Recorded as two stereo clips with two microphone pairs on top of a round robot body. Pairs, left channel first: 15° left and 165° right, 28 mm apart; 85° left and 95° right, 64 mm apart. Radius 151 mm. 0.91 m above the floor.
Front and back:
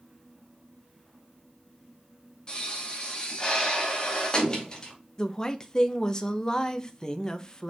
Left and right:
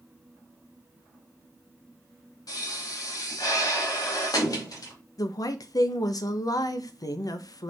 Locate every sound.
2.5 s a pop: 75° left, 2.5 m
5.2 s a woman speaking: 80° left, 1.0 m